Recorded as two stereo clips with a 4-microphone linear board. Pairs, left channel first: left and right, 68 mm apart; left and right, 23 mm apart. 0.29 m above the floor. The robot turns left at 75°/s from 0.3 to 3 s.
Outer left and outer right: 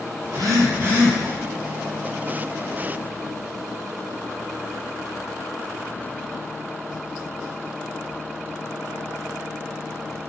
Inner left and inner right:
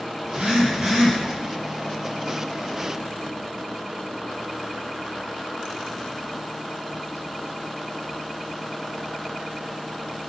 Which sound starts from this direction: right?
A phone buzzing, at 0.2 s.